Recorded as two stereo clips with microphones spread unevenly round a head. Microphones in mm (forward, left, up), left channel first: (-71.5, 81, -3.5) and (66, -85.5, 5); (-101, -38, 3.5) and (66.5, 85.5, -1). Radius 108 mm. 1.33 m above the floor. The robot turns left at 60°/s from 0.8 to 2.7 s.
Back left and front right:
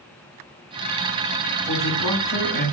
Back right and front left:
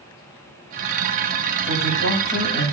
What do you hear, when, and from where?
1.6 s a man speaking: 160° right, 6.5 m; by 2.7 s 135° left, 6.5 m